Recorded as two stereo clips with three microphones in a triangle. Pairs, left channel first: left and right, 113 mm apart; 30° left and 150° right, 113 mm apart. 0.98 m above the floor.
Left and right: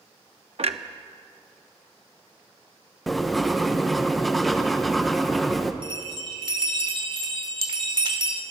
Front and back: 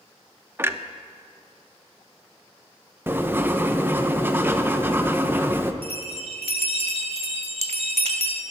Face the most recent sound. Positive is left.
turn(degrees=-130)